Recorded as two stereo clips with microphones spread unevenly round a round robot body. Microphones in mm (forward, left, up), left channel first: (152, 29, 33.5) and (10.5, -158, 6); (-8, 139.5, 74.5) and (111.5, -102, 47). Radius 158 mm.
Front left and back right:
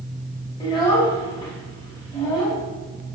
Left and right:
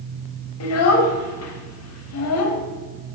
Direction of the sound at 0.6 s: 130° left.